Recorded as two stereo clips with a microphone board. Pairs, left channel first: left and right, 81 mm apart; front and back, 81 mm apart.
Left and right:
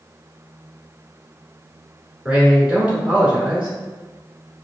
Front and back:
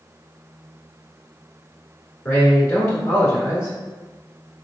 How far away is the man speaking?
About 1.4 m.